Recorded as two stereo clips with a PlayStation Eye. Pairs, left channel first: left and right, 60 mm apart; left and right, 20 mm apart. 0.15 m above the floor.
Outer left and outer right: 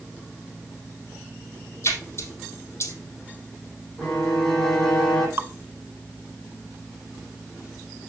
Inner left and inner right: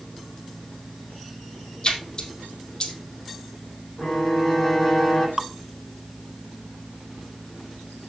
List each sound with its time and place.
1.8 s a splash: 45° left (ahead or behind), 3 m
4.0 s a violin: 5° left (ahead or behind), 8 m
5.4 s dripping: 45° right (ahead or behind), 0.7 m